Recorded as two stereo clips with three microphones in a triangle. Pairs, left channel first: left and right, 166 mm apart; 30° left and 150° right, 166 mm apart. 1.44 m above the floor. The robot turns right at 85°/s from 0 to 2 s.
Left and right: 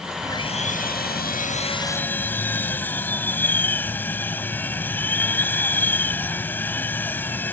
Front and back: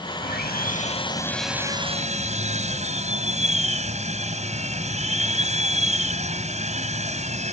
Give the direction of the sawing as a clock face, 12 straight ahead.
11 o'clock.